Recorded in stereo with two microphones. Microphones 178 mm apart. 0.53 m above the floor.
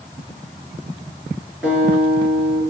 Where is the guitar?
5° right (ahead or behind), 4.5 m.